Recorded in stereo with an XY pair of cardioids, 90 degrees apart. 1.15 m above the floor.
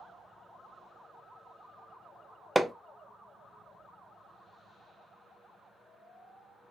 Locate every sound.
2.5 s hammering: 5° right, 0.6 m